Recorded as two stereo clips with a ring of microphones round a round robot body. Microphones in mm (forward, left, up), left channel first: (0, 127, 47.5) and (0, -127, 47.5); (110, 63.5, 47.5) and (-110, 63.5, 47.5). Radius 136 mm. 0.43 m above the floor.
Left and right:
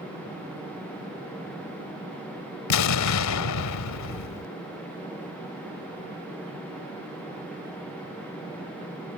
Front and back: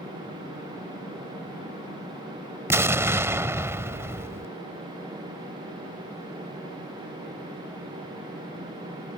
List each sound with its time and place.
2.7 s an explosion: 100° left